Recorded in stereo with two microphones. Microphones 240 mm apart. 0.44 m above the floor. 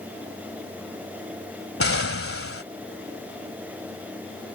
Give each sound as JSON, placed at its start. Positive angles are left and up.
{"t": 1.8, "sound": "an explosion", "side_deg": 65}